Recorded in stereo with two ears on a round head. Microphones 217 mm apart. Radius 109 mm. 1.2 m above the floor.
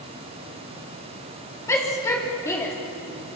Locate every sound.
1.7 s a shout: 10° left (ahead or behind), 3.5 m